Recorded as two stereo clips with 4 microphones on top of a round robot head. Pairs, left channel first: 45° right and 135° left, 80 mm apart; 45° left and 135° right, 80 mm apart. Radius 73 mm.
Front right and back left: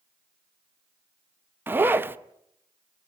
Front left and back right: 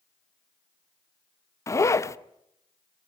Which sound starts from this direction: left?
A zipper, at 1.7 s.